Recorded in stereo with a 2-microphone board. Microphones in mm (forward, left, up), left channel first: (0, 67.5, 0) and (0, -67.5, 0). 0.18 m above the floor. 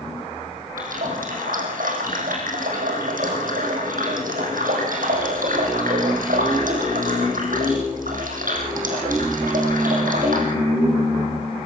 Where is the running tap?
80° right, 5 m.